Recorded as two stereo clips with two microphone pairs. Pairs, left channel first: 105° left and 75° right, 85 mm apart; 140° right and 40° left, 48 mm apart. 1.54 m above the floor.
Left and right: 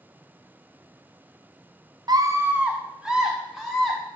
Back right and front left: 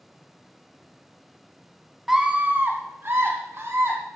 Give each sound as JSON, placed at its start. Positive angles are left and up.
{"t": 2.1, "sound": "a scream", "azimuth_deg": -45, "distance_m": 0.8}